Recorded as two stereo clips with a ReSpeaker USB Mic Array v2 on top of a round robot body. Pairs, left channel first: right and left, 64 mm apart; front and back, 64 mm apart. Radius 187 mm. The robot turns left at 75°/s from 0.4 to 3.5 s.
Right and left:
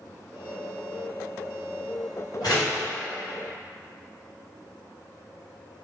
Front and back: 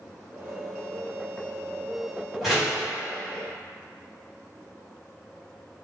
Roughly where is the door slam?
Right.